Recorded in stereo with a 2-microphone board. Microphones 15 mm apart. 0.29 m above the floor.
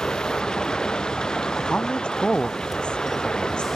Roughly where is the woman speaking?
Left.